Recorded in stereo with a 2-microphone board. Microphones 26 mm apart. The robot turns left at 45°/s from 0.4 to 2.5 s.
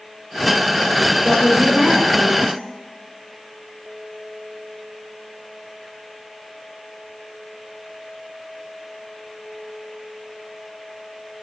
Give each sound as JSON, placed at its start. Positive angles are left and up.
{"t": 1.2, "sound": "a woman speaking", "azimuth_deg": -10, "distance_m": 2.5}